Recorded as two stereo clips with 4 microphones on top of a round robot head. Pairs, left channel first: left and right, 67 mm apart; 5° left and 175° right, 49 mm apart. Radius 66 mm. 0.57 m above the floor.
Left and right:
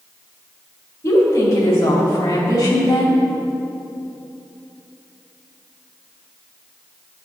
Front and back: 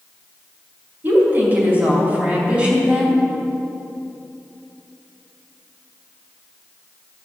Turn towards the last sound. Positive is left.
turn(degrees=115)